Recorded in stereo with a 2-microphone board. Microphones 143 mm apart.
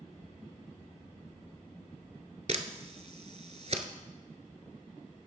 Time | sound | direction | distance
2.5 | a camera shutter | 50° right (ahead or behind) | 0.7 m